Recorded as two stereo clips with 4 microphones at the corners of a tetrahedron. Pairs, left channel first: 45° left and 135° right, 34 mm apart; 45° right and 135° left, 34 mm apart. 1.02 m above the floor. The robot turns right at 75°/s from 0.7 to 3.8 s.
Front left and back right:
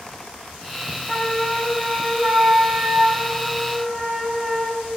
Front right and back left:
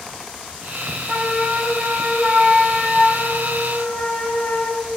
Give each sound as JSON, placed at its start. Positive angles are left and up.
{"t": 1.1, "sound": "a flute", "azimuth_deg": 110, "distance_m": 6.5}